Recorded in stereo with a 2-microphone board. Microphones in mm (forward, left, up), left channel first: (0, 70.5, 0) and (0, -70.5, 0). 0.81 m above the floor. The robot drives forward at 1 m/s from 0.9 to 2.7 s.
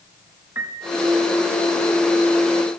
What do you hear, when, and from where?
0.6 s a piano: 15° right (ahead or behind), 4.5 m